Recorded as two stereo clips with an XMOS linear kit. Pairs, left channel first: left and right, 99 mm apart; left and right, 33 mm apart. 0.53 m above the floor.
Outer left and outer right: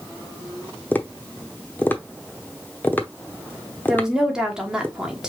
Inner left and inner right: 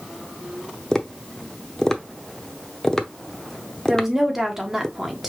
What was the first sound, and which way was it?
Tapping, 20° left (ahead or behind).